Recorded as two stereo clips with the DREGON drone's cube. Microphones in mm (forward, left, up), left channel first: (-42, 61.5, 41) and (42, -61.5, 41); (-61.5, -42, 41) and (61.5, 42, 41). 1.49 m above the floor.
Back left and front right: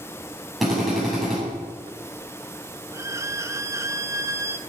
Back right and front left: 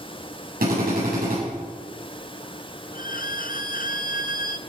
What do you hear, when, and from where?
0.6 s a drill: 35° left, 8.5 m
2.9 s a violin: 125° right, 0.5 m